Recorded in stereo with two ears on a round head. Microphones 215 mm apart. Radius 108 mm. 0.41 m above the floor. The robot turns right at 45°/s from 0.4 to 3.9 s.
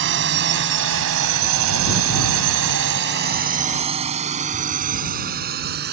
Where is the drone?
55° right (ahead or behind); by 5.9 s 45° right (ahead or behind).